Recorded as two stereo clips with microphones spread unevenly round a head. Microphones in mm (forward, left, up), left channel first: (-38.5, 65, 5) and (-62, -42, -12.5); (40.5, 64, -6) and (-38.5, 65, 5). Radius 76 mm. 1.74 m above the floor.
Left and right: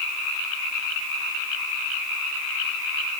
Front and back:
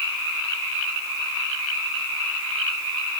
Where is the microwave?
No microwave in this recording.